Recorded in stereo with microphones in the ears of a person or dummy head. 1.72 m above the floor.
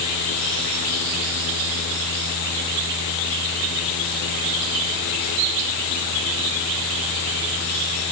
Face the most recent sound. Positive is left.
No sound to turn to.